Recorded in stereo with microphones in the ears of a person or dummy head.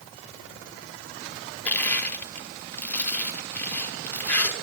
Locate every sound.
1.6 s crushing: 10° left (ahead or behind), 0.9 m